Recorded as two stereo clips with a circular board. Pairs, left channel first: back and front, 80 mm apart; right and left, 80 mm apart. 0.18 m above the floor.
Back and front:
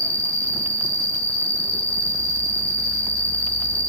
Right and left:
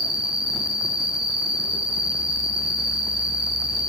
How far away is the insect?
About 2.0 m.